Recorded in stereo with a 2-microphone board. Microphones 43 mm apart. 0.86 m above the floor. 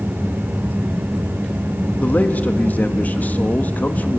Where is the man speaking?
40° left (ahead or behind), 1.4 m.